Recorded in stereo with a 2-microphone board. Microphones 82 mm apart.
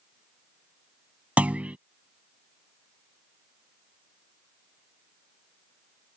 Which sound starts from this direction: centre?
A clunk, at 1.4 s.